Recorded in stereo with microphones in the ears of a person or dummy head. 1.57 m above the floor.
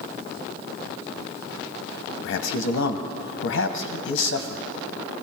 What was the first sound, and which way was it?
A man speaking, 75° left (ahead or behind).